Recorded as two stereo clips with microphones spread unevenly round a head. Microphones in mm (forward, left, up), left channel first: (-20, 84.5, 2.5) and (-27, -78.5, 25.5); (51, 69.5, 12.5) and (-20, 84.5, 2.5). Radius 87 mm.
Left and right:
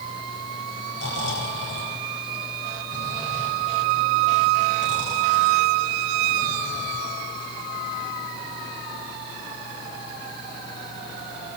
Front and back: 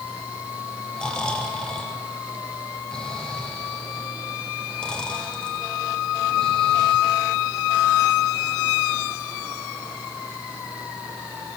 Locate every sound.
1.0 s snoring: 65° left, 8.5 m